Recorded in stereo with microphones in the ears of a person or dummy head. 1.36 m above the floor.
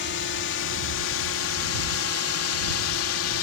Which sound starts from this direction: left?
A drone, at 0.0 s.